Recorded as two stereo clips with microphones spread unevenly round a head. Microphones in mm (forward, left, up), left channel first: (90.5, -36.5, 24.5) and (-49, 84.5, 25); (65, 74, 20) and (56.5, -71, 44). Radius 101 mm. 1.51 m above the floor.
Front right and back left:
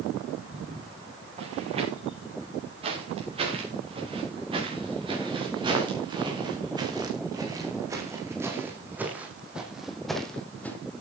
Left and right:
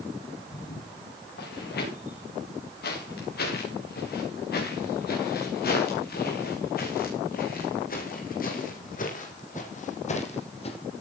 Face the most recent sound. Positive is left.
turn(degrees=40)